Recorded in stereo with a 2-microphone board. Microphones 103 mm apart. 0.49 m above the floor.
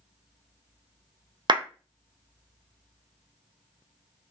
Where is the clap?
45° right (ahead or behind), 0.7 m.